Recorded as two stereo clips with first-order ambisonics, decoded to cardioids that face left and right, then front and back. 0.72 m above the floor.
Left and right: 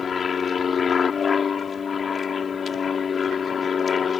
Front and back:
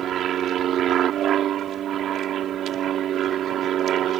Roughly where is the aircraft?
Behind left.